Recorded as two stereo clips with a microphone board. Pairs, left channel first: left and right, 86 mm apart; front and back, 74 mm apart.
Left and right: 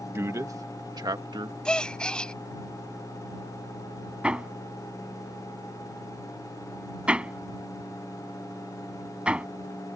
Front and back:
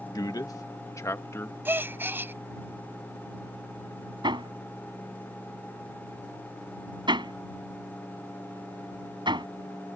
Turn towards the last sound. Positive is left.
turn(degrees=-170)